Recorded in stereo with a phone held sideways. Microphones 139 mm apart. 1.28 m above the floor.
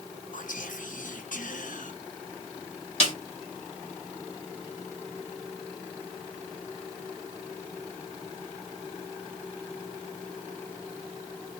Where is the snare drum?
50° left (ahead or behind), 1.4 m.